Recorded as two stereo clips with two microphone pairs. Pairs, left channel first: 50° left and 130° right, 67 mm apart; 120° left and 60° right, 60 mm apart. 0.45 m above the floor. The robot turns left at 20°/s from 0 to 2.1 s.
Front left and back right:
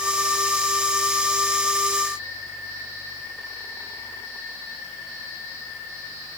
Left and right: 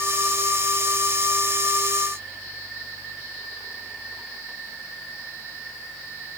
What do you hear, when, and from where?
Only background noise.